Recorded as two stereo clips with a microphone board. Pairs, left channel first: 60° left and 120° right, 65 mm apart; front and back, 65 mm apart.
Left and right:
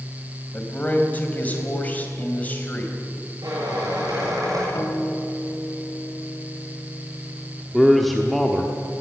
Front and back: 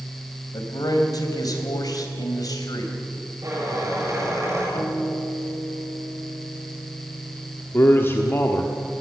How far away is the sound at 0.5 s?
About 3 m.